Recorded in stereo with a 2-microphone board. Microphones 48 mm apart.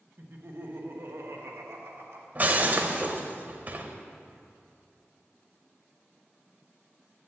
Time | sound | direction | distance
0.2 | laughter | 50° right (ahead or behind) | 1.4 m
2.4 | breaking glass | 35° right (ahead or behind) | 0.8 m